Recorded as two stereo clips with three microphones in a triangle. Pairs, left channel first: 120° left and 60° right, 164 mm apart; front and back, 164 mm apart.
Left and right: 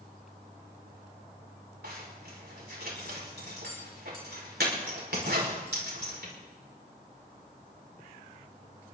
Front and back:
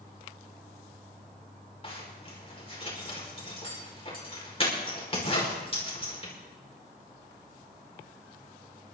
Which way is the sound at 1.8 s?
55° right.